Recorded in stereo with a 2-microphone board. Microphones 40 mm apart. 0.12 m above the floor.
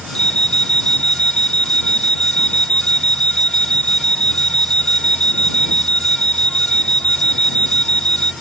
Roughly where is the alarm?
Centre.